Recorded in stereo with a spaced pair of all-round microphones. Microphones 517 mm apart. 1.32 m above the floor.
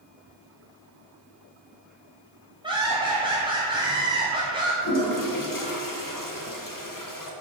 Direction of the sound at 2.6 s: 10° right (ahead or behind).